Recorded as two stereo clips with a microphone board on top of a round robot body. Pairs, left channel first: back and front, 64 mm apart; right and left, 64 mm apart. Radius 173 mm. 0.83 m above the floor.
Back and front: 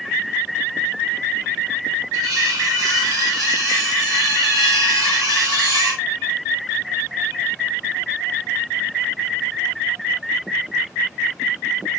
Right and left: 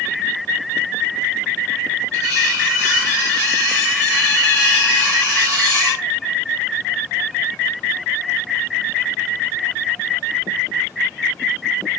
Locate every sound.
2.1 s cutlery clinking: 40° left, 3.5 m